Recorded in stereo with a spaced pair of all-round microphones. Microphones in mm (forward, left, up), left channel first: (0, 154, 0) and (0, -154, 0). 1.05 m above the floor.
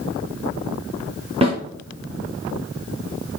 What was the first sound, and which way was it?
A snare drum, 20° right (ahead or behind).